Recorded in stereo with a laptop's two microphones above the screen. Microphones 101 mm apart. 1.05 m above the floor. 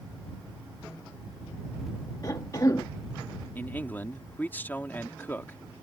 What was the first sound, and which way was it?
A cough, 40° left (ahead or behind).